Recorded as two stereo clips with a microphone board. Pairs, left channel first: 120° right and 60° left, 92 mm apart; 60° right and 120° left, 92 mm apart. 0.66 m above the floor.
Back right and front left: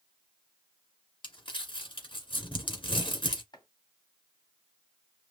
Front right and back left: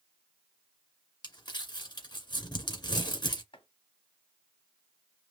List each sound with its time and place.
1.2 s crumpling: 95° right, 1.9 m
3.5 s chopping: 80° right, 2 m